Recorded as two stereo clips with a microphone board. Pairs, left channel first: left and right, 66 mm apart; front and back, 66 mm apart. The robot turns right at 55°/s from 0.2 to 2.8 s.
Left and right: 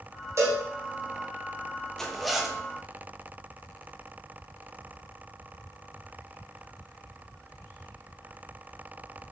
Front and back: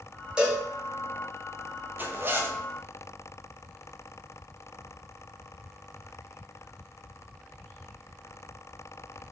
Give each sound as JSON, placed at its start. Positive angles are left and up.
{"t": 0.4, "sound": "a cowbell", "azimuth_deg": -105, "distance_m": 1.3}
{"t": 2.0, "sound": "a zipper", "azimuth_deg": 165, "distance_m": 0.5}